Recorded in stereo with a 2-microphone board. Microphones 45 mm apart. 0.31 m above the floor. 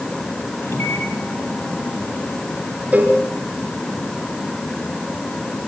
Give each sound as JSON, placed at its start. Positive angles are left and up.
{"t": 0.6, "sound": "a microwave", "side_deg": 70, "distance_m": 6.5}
{"t": 2.9, "sound": "a cowbell", "side_deg": -35, "distance_m": 5.5}